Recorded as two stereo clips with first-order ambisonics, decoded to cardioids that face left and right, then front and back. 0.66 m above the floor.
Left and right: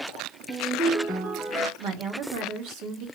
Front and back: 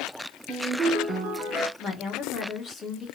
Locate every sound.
0.5 s a ringtone: 155° right, 1.8 m
1.8 s a woman speaking: 65° right, 1.3 m